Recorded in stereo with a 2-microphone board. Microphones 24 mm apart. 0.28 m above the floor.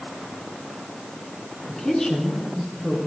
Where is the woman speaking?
40° left (ahead or behind), 3.5 m; by 3.0 s 30° left (ahead or behind), 4 m.